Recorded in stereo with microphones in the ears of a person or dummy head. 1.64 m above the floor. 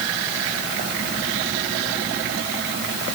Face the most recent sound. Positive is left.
No sound to turn to.